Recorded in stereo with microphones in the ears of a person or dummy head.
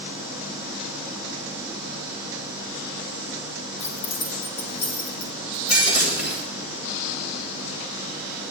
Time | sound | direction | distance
3.8 | keys jangling | 80° left | 1.4 m
5.7 | breaking glass | 45° left (ahead or behind) | 1.9 m